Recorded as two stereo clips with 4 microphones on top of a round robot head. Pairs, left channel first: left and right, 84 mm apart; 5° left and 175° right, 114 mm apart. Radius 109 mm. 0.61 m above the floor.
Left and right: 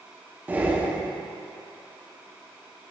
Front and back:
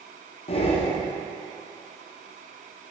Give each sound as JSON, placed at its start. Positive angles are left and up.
{"t": 0.5, "sound": "breathing", "azimuth_deg": -20, "distance_m": 1.1}